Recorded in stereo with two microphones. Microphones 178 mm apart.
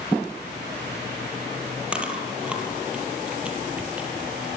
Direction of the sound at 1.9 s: 5° right (ahead or behind).